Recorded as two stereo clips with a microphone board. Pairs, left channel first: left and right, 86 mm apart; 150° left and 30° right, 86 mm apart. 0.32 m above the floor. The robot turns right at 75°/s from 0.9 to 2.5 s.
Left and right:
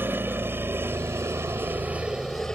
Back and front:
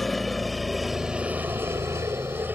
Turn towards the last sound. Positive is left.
turn(degrees=10)